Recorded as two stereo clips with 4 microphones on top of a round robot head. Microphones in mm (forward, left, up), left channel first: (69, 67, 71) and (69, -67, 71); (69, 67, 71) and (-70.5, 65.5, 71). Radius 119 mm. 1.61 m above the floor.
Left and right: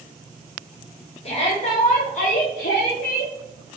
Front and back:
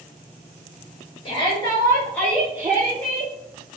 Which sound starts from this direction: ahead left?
A shout, at 1.2 s.